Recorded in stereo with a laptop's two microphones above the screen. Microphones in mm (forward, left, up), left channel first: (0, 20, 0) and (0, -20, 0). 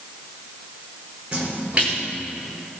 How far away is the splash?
About 5 m.